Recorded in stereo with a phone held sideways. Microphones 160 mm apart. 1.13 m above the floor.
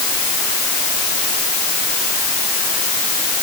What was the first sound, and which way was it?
Only background noise.